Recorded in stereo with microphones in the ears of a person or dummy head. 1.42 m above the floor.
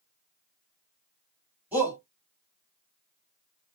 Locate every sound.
1.7 s a shout: 10° right (ahead or behind), 2.5 m